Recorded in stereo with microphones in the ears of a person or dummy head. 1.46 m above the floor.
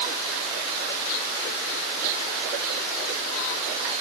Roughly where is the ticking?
No ticking in this recording.